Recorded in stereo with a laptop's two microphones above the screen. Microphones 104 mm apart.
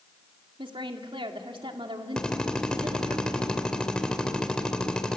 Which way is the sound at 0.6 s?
55° right (ahead or behind).